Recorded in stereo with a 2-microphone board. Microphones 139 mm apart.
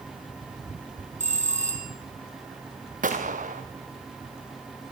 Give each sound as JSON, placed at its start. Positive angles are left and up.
{"t": 1.2, "sound": "a bell", "side_deg": -60, "distance_m": 4.0}
{"t": 3.0, "sound": "a gunshot", "side_deg": -80, "distance_m": 2.5}